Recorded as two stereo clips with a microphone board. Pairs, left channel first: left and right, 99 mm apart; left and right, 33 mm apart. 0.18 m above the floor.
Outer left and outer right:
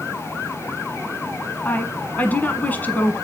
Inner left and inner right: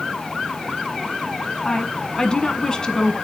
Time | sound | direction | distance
1.6 | a woman speaking | 15° left (ahead or behind) | 1.4 m